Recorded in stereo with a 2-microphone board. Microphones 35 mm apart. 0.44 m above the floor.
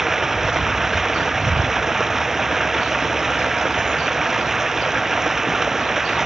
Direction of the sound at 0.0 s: 10° right (ahead or behind).